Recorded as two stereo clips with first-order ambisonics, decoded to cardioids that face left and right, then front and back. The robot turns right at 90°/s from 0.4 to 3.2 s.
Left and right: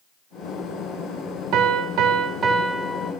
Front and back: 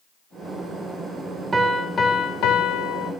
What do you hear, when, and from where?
1.5 s a piano: 110° right, 0.5 m; by 3.1 s 35° left, 0.5 m